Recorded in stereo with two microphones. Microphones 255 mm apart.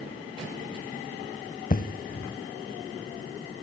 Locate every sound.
1.7 s an explosion: 35° left (ahead or behind), 0.6 m